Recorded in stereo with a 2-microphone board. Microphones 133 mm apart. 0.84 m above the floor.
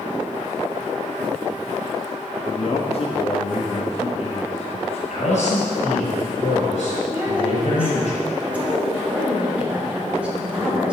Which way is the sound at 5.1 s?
60° left (ahead or behind).